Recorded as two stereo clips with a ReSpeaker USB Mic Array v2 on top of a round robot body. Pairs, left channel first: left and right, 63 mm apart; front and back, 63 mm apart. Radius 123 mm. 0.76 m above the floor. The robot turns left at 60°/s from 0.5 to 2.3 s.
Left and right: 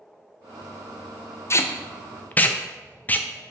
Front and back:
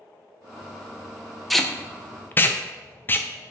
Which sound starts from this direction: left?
Tape being pulled, at 1.5 s.